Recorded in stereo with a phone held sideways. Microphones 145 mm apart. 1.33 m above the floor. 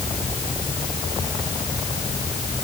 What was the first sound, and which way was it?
Only background noise.